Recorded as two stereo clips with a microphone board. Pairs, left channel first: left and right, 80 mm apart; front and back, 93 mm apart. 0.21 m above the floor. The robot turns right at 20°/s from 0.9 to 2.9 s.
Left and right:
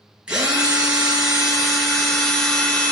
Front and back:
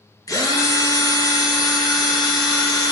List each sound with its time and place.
0.3 s a drill: 20° right, 0.7 m; by 2.9 s 20° left, 0.7 m